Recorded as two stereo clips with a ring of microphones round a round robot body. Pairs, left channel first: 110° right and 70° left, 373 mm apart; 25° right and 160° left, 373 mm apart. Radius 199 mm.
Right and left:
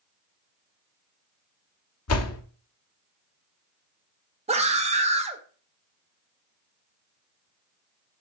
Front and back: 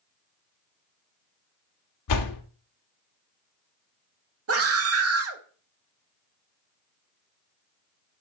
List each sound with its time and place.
2.1 s a door slam: 60° right, 1.0 m
4.5 s a scream: 130° left, 1.3 m